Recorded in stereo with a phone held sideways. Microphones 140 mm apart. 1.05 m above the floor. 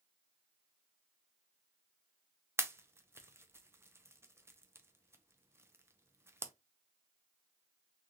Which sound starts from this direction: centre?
A pop, at 2.6 s.